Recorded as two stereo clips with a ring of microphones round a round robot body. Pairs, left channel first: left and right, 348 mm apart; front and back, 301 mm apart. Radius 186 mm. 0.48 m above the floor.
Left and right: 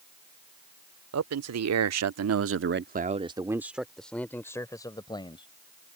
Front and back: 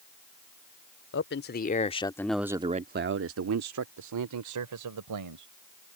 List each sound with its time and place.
1.1 s a man speaking: 50° right; by 5.5 s 165° left